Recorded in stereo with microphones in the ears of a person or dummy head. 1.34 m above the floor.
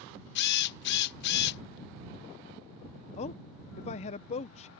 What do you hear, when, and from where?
0.3 s a drill: 60° left (ahead or behind)
3.2 s a man speaking: 40° left (ahead or behind)